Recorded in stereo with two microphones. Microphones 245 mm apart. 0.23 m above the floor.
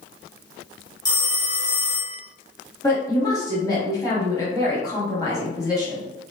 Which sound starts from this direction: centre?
A woman speaking, at 2.8 s.